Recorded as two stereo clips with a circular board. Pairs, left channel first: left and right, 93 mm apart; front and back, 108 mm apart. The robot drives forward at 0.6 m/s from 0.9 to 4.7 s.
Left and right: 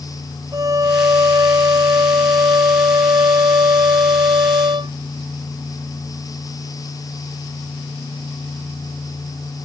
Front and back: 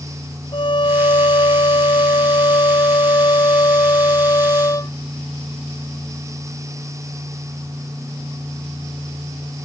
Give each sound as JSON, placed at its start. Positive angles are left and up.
{"t": 0.5, "sound": "a violin", "azimuth_deg": -40}